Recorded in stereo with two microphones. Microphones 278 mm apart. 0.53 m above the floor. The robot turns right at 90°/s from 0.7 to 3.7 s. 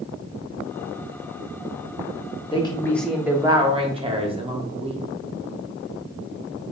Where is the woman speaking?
20° left (ahead or behind), 0.6 m; by 5.0 s 20° right (ahead or behind), 0.6 m.